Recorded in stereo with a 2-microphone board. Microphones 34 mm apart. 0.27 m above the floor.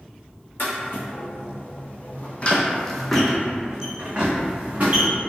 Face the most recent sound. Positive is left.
turn(degrees=-40)  # may be behind; listen again after turning